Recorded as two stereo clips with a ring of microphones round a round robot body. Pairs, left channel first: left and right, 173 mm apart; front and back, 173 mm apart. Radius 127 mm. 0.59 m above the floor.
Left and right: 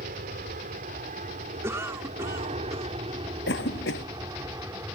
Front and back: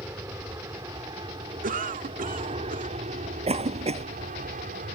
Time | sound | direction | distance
0.0 | an aircraft | 105° right | ?
1.6 | a cough | 165° right | ?
3.5 | a cough | 130° left | ?